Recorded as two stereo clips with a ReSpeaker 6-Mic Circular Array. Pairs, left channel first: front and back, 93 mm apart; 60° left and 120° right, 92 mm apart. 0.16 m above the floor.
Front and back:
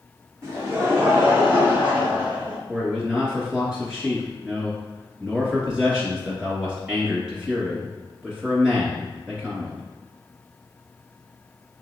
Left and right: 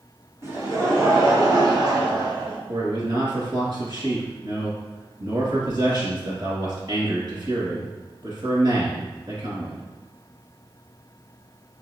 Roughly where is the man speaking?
Right.